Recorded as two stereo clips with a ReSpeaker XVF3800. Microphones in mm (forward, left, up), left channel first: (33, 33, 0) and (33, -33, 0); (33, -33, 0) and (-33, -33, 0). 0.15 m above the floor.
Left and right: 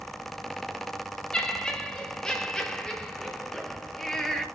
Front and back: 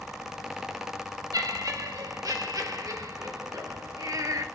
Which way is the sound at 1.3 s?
165° left.